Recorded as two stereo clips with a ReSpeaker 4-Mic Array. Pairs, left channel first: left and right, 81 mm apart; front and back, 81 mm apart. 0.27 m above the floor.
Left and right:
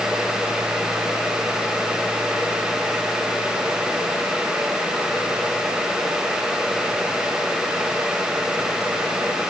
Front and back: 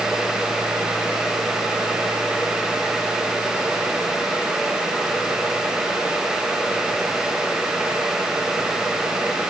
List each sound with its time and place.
Only background noise.